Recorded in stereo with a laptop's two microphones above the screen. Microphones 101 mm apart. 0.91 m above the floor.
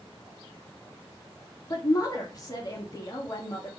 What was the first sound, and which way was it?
A woman speaking, 35° left (ahead or behind).